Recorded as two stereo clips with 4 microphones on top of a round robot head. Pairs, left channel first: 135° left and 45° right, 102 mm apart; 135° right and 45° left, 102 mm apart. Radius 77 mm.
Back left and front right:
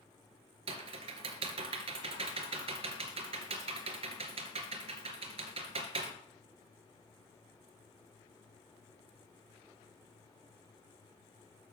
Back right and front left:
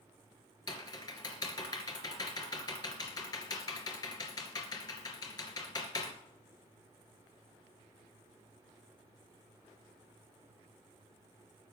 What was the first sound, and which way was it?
Typing on a keyboard, 80° right.